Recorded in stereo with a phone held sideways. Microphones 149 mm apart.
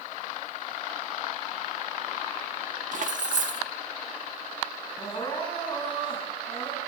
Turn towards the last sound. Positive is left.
turn(degrees=30)  # may be behind; listen again after turning